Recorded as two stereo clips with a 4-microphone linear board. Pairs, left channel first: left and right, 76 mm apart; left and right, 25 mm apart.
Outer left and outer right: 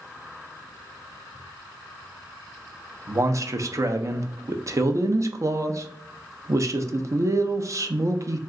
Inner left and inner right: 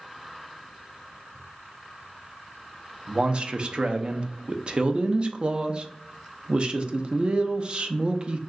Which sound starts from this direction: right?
A man speaking, at 3.1 s.